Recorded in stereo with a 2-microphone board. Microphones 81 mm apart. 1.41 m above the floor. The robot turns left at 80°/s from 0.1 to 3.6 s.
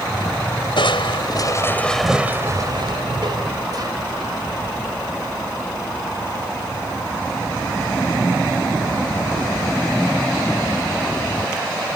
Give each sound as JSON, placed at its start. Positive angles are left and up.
{"t": 0.8, "sound": "crushing", "azimuth_deg": 100}